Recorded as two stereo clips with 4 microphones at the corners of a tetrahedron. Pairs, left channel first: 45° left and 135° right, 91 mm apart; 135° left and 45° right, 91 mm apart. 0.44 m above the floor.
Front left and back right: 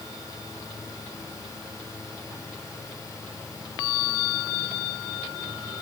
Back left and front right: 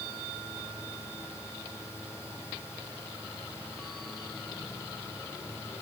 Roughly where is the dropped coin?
No dropped coin in this recording.